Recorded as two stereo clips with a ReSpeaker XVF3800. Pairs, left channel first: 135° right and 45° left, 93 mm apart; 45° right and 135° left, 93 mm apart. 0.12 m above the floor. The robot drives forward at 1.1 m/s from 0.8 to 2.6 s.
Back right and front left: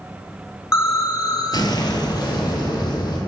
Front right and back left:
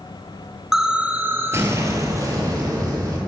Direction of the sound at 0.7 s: 145° right.